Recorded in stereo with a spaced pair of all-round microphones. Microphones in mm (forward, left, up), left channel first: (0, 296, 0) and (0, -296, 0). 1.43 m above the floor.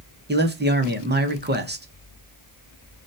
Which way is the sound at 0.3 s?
20° right (ahead or behind).